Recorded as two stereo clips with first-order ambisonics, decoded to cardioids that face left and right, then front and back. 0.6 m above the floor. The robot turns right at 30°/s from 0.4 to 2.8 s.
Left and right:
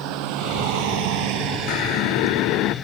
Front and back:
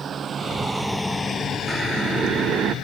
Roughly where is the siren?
Left.